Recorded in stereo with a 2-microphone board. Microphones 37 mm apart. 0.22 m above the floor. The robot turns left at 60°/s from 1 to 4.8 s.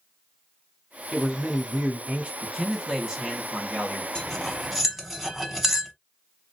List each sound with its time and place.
1.1 s a man speaking: 5° right (ahead or behind), 1.0 m; by 2.3 s 25° right (ahead or behind), 1.0 m
2.4 s a man speaking: 10° left, 2 m; by 4.0 s 90° right, 2 m
4.2 s cutlery clinking: 20° left (ahead or behind), 0.9 m; by 5.9 s 5° right (ahead or behind), 0.9 m